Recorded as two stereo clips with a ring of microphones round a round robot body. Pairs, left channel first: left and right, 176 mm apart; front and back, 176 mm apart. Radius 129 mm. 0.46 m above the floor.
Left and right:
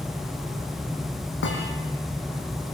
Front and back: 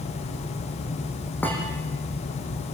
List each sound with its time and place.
1.4 s a thud: 80° left, 7.5 m